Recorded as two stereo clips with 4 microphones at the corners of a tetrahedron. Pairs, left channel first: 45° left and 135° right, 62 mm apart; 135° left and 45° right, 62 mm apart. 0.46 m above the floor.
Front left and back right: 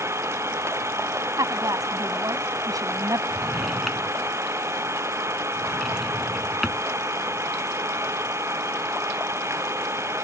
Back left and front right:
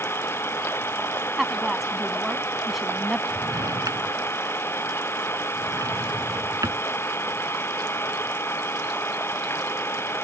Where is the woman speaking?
135° right.